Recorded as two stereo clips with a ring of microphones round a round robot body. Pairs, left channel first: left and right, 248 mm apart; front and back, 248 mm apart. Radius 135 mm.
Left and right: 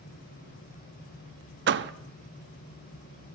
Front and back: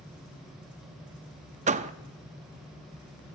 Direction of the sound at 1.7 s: 125° right.